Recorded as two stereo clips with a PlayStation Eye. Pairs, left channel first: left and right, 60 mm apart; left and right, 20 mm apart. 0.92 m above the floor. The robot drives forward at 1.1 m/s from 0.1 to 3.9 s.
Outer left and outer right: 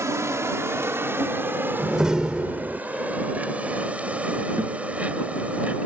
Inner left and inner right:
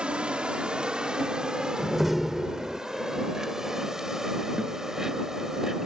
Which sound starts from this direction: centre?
A door slam, at 1.8 s.